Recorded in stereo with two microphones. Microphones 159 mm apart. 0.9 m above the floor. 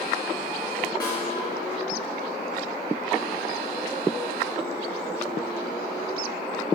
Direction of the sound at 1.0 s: 25° left (ahead or behind).